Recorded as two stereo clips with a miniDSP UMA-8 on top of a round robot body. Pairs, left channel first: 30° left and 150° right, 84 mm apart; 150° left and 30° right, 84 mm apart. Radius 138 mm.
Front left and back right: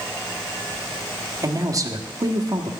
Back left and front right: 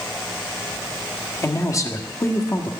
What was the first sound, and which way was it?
A man speaking, 175° right.